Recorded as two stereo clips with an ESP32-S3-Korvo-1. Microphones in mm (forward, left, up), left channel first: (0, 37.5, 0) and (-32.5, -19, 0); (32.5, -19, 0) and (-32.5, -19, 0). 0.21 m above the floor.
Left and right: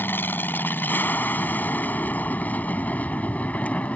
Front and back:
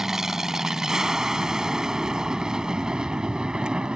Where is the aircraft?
100° left; by 4.0 s 115° left.